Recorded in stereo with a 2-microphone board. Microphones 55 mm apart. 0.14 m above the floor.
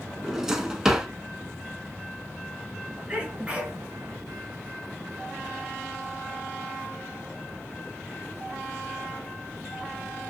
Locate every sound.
0.2 s a drawer: 10° right (ahead or behind), 0.6 m
3.1 s a sneeze: 20° right (ahead or behind), 1.6 m